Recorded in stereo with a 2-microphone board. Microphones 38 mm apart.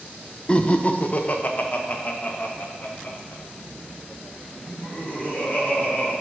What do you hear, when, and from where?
0.5 s laughter: 25° left (ahead or behind), 0.6 m; by 6.1 s 40° left (ahead or behind), 4 m